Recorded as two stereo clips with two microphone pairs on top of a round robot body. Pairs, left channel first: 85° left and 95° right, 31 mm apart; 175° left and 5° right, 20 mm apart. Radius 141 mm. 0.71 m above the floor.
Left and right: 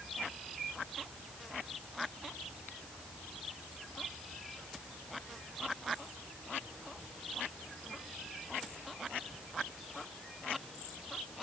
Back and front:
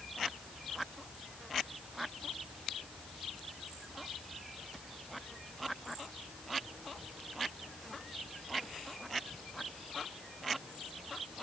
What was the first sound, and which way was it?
Only background noise.